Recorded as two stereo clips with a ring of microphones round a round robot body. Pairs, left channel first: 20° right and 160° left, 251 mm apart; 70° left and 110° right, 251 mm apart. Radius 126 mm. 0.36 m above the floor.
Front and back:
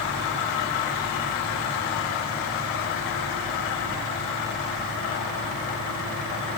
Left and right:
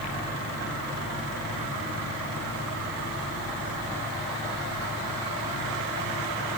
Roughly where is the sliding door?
No sliding door in this recording.